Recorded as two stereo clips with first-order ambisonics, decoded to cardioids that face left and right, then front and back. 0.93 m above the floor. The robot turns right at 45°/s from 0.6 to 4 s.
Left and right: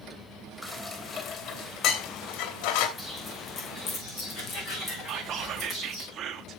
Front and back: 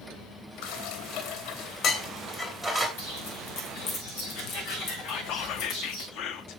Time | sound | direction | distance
0.6 | dishes clattering | 15° right | 2.5 m
3.0 | footsteps | 10° left | 5 m
5.1 | whispering | 35° right | 1.2 m